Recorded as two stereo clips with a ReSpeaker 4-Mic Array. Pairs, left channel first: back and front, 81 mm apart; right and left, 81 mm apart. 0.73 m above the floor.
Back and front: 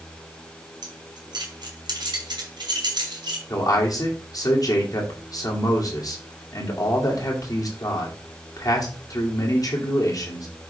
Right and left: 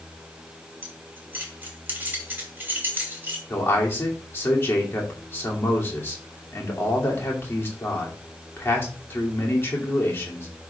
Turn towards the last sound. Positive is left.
turn(degrees=-150)